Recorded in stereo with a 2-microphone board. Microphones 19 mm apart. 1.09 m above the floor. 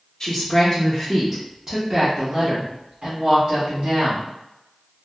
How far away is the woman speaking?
About 0.8 m.